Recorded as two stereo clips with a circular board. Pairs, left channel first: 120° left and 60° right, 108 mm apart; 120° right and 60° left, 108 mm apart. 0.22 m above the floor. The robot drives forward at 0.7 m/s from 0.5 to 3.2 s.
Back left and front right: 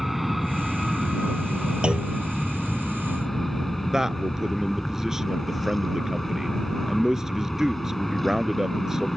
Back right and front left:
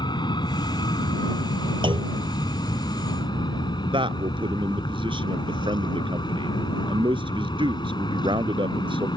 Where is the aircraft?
150° right.